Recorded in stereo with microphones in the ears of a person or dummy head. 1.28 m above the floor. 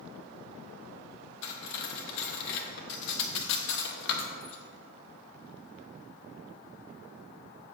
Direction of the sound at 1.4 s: 65° left (ahead or behind).